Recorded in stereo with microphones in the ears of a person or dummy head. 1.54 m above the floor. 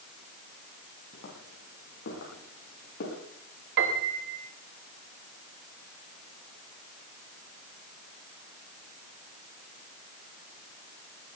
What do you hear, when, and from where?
1.1 s footsteps: 60° left (ahead or behind), 7.5 m; by 3.2 s 65° left (ahead or behind), 9 m
3.8 s a piano: 60° right (ahead or behind), 2 m